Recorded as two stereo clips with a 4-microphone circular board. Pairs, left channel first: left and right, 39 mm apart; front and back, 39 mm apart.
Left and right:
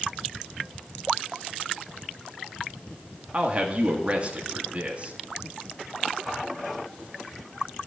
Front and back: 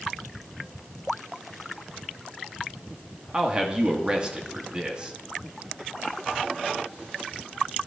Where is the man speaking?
120° right, 1.3 m.